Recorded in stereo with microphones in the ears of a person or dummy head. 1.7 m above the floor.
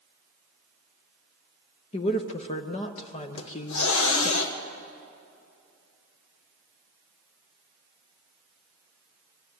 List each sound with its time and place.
1.9 s a woman speaking: 40° left (ahead or behind), 0.9 m
3.4 s a hiss: 80° left, 1.5 m